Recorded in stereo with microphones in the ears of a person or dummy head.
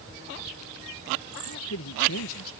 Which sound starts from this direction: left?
A man speaking, at 1.4 s.